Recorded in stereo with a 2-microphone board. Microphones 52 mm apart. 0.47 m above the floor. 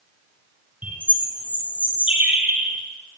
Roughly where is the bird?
Right.